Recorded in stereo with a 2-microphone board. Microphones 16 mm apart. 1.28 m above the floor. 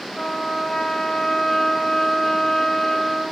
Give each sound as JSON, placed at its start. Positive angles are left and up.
{"t": 0.1, "sound": "a trumpet", "side_deg": 40, "distance_m": 4.0}